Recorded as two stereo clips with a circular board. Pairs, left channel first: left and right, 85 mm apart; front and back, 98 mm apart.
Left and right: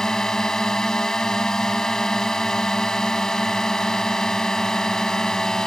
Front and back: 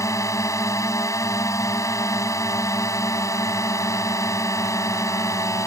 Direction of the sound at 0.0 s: 15° left.